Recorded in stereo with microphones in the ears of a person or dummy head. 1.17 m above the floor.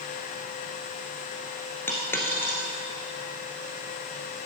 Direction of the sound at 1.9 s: 10° left (ahead or behind).